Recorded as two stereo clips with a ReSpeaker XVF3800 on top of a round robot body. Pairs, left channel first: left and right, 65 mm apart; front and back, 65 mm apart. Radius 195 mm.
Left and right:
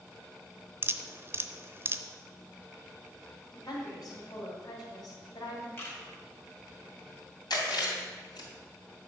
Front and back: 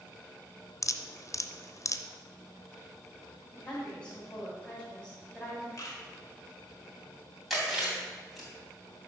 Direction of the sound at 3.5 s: 75° left.